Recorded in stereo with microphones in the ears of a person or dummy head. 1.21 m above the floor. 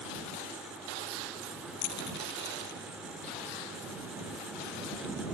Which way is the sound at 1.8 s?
60° left (ahead or behind).